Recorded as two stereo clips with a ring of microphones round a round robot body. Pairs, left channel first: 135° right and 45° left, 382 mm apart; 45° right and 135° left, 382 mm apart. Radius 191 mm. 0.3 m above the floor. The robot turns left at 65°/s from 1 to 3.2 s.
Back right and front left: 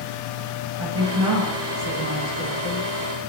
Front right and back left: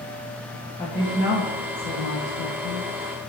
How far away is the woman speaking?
About 3.5 m.